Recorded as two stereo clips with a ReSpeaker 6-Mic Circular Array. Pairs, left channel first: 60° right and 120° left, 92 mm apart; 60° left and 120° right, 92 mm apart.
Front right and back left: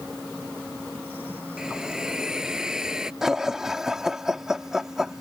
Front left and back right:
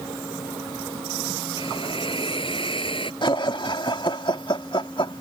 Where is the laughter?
35° left.